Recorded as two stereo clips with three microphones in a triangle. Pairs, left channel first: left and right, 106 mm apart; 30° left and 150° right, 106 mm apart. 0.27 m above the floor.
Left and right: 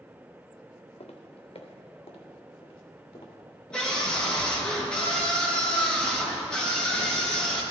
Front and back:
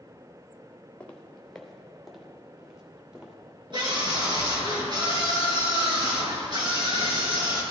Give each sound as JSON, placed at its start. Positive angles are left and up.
{"t": 1.0, "sound": "footsteps", "azimuth_deg": 105, "distance_m": 1.4}
{"t": 3.7, "sound": "a scream", "azimuth_deg": 170, "distance_m": 4.0}